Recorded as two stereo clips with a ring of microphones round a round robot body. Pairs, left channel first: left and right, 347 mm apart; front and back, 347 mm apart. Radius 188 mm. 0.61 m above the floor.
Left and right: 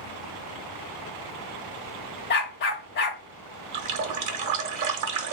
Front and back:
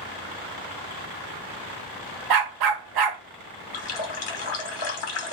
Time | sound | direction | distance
2.3 | a dog barking | 155° left | 0.9 m
3.7 | a running tap | 55° right | 1.0 m